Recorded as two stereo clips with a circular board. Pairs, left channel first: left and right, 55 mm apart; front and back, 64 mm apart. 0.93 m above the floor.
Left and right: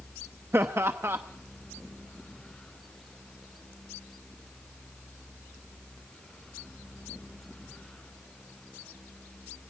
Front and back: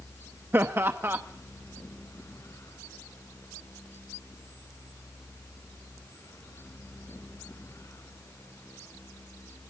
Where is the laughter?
130° right, 0.9 m.